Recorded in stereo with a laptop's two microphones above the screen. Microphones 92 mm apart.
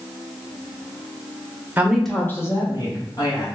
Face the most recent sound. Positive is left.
turn(degrees=45)  # may be behind; listen again after turning